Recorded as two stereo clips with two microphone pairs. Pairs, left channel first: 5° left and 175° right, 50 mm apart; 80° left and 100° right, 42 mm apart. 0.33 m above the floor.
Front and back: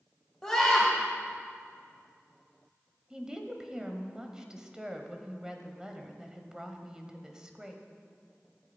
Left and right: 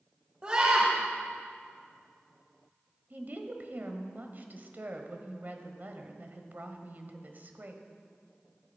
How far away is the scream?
About 1.7 m.